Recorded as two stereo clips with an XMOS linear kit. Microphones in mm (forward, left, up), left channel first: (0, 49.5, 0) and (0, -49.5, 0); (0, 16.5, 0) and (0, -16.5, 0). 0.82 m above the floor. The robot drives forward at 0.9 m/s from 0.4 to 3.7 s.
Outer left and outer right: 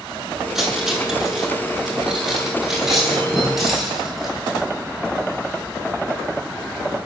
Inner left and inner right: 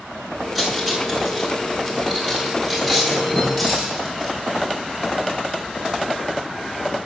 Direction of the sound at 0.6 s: 5° right (ahead or behind).